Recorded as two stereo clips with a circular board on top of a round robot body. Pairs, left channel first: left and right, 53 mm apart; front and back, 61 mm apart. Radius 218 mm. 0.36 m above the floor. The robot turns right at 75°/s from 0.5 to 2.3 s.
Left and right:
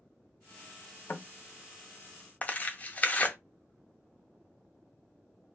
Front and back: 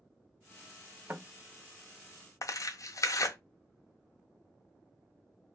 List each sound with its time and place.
1.1 s knocking: 125° left, 0.6 m; by 1.3 s 140° left, 0.6 m
2.4 s tearing paper: 30° left, 0.6 m